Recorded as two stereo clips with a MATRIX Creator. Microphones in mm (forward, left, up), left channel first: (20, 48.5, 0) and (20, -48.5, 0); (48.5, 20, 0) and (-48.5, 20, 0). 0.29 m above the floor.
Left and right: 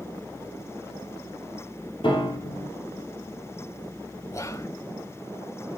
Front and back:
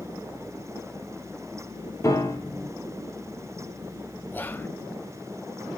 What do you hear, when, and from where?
2.0 s a piano: 60° left, 4 m
4.3 s whispering: 55° left, 1.0 m